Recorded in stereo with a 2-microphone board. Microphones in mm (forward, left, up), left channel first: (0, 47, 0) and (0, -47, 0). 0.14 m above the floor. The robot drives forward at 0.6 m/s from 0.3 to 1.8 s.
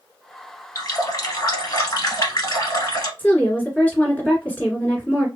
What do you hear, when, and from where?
0.8 s a running tap: 40° left (ahead or behind), 1.5 m; by 3.1 s 45° left (ahead or behind), 1.3 m
3.2 s a woman speaking: 15° left (ahead or behind), 1.7 m